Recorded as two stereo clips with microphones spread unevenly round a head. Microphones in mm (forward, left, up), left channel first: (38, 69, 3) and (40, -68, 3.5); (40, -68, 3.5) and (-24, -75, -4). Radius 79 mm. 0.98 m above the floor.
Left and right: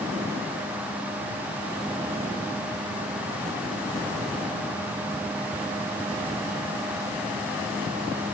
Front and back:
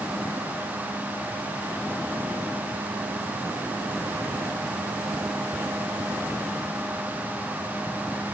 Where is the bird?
No bird in this recording.